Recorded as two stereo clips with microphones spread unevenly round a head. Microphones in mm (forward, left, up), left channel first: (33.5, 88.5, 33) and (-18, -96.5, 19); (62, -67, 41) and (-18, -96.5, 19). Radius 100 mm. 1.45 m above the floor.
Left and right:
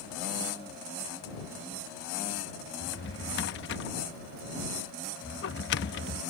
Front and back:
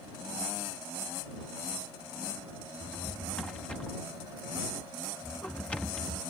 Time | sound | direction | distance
2.8 | a drawer | 95° left | ?